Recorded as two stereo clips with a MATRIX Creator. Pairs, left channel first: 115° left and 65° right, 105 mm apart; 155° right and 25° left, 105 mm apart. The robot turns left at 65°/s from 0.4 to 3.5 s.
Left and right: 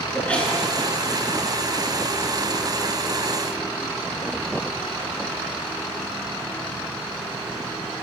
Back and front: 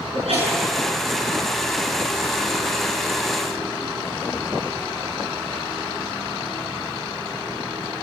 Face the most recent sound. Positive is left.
turn(degrees=-165)